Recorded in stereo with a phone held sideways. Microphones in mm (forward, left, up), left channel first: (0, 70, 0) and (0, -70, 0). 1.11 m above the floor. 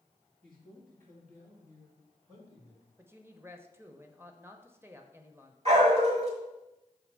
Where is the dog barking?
50° right (ahead or behind), 1.5 m.